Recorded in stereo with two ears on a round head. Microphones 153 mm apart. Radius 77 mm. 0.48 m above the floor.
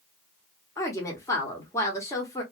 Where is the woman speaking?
20° left (ahead or behind), 1.1 m.